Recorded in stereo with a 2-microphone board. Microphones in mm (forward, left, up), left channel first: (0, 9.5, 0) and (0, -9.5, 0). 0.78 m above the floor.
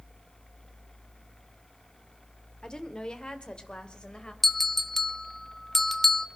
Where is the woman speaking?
40° left (ahead or behind), 1.8 m; by 4.3 s 50° left (ahead or behind), 3 m.